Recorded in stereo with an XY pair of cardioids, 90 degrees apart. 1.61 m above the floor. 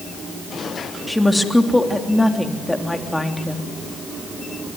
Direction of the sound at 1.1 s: 10° left.